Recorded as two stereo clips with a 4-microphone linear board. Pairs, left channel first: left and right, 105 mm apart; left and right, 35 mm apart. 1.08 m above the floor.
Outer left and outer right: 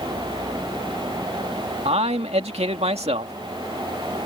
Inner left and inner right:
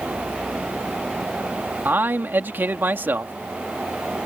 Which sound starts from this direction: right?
A man speaking, at 1.9 s.